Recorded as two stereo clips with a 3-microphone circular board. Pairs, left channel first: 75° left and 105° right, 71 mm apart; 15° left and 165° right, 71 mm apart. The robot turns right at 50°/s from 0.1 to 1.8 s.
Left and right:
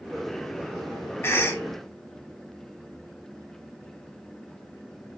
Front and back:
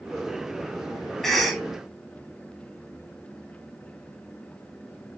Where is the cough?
95° left, 0.8 m; by 1.6 s 115° left, 0.8 m.